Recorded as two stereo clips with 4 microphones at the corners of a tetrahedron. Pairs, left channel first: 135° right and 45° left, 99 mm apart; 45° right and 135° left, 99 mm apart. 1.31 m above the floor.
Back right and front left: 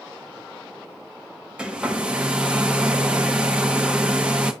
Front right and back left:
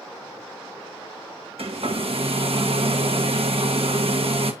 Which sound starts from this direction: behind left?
A hair dryer, at 1.6 s.